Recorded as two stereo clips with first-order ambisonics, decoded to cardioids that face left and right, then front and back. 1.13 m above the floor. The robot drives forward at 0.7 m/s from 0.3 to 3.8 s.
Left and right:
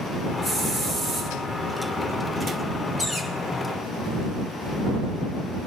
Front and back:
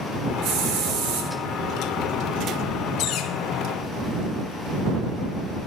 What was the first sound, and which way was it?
A hiss, 165° left.